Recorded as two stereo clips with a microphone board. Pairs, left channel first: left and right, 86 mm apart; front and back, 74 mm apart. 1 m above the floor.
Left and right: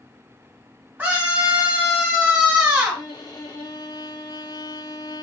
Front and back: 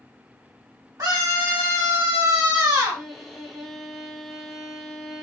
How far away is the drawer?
I don't hear a drawer.